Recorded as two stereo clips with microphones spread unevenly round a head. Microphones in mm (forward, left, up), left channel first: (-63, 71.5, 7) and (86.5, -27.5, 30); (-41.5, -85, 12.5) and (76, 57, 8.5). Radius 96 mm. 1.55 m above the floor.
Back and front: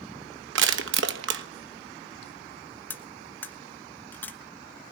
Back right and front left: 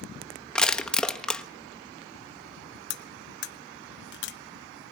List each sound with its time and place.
0.6 s crushing: 45° right, 1.4 m
2.9 s cutlery clinking: 130° right, 1.1 m